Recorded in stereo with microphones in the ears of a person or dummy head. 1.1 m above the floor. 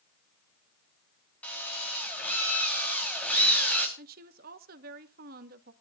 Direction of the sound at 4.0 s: 50° right (ahead or behind).